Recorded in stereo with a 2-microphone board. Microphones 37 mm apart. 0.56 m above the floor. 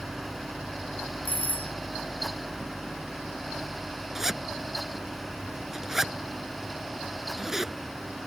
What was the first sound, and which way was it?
A doorbell, 45° left (ahead or behind).